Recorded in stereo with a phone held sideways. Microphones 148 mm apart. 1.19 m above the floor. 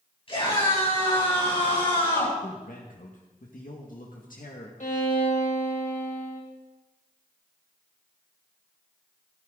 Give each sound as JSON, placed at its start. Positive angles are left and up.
{"t": 0.3, "sound": "a scream", "side_deg": 40, "distance_m": 8.5}
{"t": 2.4, "sound": "a man speaking", "side_deg": 70, "distance_m": 1.8}
{"t": 4.8, "sound": "a violin", "side_deg": 60, "distance_m": 2.5}